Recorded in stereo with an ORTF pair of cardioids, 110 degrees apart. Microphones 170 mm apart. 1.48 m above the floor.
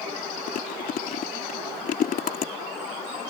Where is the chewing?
55° left.